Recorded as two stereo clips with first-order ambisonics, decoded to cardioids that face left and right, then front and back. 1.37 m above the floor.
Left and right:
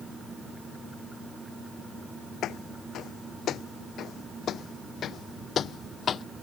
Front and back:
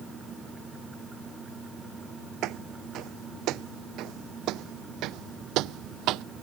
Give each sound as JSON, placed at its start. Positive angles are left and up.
{"t": 2.4, "sound": "footsteps", "azimuth_deg": 140}